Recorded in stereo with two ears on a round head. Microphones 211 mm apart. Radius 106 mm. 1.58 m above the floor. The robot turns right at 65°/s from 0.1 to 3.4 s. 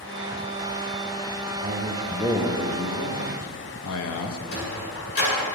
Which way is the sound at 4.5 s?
60° left (ahead or behind).